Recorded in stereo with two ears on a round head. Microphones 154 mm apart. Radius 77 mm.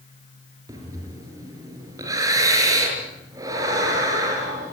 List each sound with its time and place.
0.7 s breathing: 20° right (ahead or behind), 6 m